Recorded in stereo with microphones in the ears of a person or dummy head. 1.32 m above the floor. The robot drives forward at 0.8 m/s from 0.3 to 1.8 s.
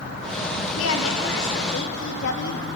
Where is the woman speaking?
80° left, 2.5 m; by 2.7 s 65° left (ahead or behind), 2.5 m.